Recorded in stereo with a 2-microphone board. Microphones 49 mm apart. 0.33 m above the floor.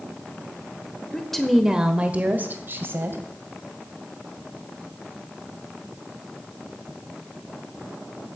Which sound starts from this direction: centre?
A woman speaking, at 1.1 s.